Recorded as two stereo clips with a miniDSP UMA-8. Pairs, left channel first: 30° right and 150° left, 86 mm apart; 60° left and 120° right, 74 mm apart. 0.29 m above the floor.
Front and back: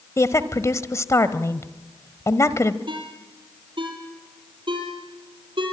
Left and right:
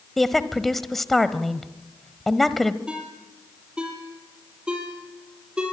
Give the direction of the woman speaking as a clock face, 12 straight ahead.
1 o'clock.